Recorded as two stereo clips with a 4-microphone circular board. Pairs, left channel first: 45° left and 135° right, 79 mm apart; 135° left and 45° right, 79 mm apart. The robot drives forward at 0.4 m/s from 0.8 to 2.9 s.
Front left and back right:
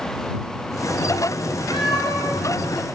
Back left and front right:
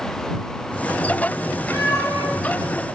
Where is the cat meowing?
75° left, 7 m; by 2.3 s 80° left, 6.5 m.